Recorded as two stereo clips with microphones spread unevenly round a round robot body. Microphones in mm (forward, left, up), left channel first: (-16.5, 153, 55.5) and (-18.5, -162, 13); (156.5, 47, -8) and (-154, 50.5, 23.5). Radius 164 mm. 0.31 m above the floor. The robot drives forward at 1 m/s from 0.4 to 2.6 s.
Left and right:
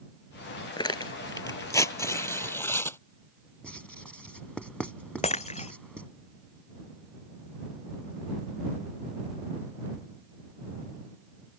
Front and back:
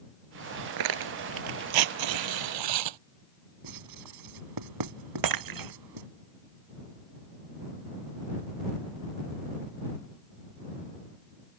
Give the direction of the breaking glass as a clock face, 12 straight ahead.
7 o'clock.